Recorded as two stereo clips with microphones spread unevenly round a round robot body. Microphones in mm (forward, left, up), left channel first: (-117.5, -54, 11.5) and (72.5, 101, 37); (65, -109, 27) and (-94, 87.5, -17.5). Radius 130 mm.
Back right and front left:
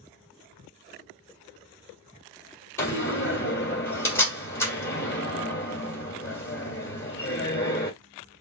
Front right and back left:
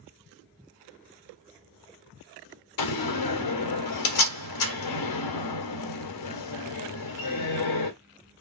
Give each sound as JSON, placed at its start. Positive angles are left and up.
{"t": 2.8, "sound": "a door slam", "azimuth_deg": -60, "distance_m": 1.8}